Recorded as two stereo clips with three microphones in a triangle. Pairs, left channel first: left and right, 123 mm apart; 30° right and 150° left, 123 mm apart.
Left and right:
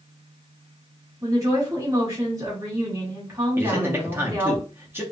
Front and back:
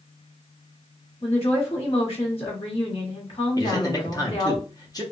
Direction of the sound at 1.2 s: 30° right.